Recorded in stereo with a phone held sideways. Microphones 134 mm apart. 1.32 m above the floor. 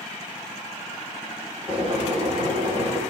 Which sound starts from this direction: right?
Boiling, at 1.7 s.